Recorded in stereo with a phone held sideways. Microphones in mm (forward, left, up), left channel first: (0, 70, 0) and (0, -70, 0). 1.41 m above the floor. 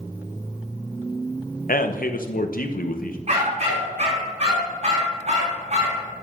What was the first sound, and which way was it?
A man speaking, 85° left.